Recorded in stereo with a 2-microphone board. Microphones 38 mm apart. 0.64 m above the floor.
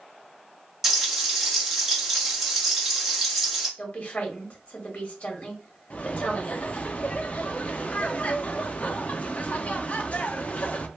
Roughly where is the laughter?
Left.